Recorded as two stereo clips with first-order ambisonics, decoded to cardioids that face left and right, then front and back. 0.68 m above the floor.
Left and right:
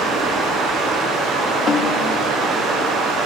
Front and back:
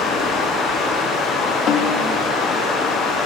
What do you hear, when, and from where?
0.0 s running water: 40° right, 4.5 m
1.7 s a snare drum: 40° left, 1.3 m